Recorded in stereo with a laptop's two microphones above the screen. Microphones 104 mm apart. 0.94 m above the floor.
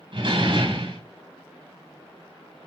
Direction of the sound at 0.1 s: 55° right (ahead or behind).